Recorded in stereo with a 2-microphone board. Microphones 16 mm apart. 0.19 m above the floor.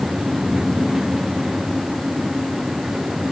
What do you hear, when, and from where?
Only background noise.